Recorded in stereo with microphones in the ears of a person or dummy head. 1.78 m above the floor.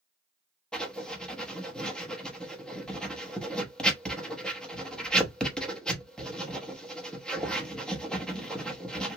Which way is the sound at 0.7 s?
5° left (ahead or behind).